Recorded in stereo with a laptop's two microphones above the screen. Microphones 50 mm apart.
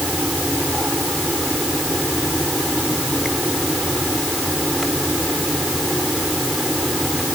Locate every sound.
0.0 s a fan: 5° right (ahead or behind)